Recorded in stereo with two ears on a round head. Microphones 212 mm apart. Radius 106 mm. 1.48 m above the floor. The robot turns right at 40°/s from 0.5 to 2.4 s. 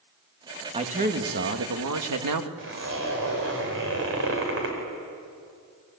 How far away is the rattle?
No rattle in this recording.